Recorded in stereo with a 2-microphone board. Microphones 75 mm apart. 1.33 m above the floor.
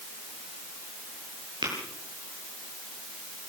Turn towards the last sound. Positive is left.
turn(degrees=-85)